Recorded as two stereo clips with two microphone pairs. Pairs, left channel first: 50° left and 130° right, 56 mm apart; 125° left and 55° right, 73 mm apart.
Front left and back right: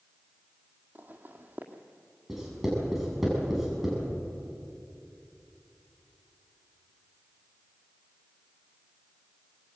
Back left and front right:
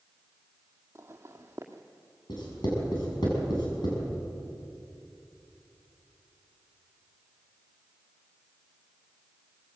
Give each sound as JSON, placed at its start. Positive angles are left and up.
{"t": 0.9, "sound": "footsteps", "azimuth_deg": -90, "distance_m": 1.9}
{"t": 2.3, "sound": "writing", "azimuth_deg": 140, "distance_m": 7.0}